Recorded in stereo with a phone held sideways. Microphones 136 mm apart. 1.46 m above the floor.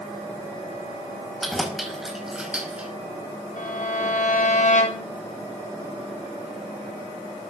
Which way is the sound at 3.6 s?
65° left (ahead or behind).